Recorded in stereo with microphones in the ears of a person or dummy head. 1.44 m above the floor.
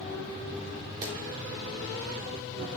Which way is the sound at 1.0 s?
20° right (ahead or behind).